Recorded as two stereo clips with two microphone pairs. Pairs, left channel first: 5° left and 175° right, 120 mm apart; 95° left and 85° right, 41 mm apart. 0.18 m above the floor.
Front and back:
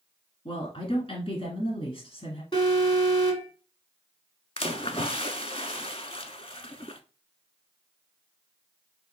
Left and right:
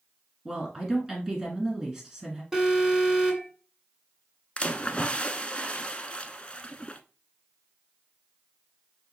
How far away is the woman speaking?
About 2.0 m.